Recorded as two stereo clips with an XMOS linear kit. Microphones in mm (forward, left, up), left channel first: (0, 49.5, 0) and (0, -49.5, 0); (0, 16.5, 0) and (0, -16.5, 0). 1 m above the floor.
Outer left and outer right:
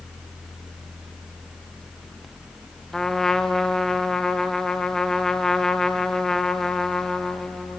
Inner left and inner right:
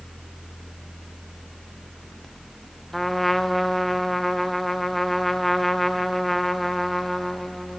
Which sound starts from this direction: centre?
A trumpet, at 2.9 s.